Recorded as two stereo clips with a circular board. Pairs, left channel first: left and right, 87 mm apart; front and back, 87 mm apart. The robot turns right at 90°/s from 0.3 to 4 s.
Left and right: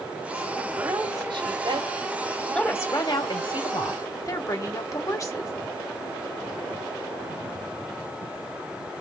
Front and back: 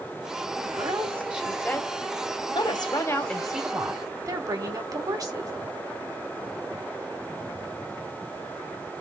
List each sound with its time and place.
0.6 s a woman speaking: 165° right, 1.8 m; by 5.5 s 140° left, 1.8 m